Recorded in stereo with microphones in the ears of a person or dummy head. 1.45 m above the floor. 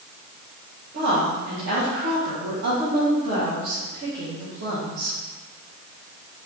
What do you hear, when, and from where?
0.9 s a woman speaking: 70° right (ahead or behind), 1.3 m